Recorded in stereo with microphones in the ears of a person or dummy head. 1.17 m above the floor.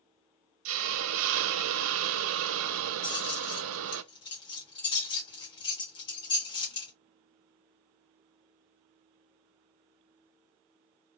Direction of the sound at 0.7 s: 70° right (ahead or behind).